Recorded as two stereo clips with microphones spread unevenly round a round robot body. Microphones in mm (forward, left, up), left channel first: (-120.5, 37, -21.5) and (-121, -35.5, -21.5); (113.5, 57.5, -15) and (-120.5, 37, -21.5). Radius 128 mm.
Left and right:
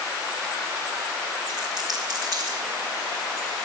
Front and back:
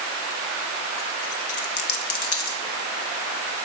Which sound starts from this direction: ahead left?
A dropped coin, at 1.5 s.